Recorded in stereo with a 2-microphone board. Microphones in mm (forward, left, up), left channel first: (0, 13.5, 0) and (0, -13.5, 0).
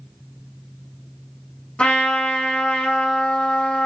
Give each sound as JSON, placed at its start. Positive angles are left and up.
{"t": 1.8, "sound": "a trumpet", "side_deg": 40, "distance_m": 1.7}